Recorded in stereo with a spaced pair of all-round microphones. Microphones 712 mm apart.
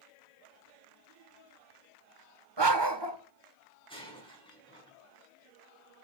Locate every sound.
2.6 s a dog barking: 35° right (ahead or behind), 1.7 m
3.9 s breaking glass: 5° left (ahead or behind), 7 m